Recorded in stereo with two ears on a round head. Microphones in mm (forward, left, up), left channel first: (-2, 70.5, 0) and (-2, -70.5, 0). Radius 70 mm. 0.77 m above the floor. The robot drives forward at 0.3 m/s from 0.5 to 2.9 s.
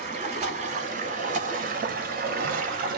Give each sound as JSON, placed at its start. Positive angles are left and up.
{"t": 0.0, "sound": "running water", "side_deg": -45, "distance_m": 1.1}